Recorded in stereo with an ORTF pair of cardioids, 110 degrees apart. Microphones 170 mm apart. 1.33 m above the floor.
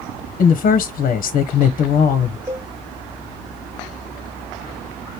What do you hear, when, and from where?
0.4 s a woman speaking: 55° left, 0.9 m
2.5 s a cowbell: 15° right, 1.3 m